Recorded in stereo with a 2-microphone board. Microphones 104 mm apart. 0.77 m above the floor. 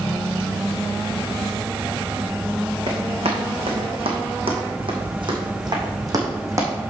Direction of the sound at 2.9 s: 75° right (ahead or behind).